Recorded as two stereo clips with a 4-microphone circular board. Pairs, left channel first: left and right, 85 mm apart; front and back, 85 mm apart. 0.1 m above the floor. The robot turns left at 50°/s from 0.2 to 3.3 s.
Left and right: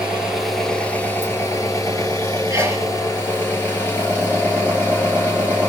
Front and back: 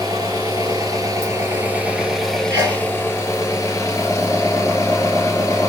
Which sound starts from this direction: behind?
An engine running, at 0.0 s.